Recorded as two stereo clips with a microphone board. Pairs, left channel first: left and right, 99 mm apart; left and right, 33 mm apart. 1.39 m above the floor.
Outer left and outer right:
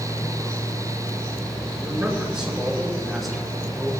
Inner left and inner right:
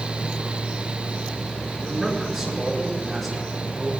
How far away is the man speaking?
About 5.5 m.